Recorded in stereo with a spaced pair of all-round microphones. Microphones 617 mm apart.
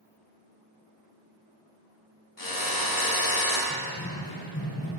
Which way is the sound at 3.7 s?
10° left (ahead or behind).